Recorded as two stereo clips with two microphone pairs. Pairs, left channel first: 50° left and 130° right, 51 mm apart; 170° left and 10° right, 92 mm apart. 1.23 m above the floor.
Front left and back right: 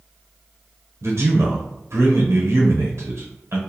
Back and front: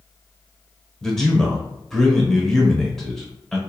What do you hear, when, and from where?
1.0 s a man speaking: 110° right, 0.8 m